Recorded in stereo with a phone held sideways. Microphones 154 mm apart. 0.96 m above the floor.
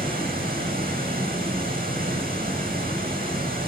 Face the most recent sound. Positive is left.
turn(degrees=-80)